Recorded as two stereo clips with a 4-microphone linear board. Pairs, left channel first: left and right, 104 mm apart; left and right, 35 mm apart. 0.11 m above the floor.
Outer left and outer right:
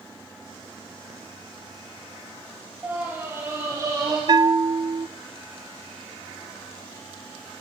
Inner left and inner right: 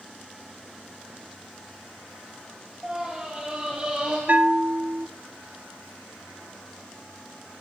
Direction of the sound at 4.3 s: 45° right (ahead or behind).